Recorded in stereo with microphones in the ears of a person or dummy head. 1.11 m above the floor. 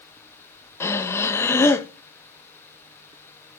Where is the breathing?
10° left (ahead or behind), 1.1 m.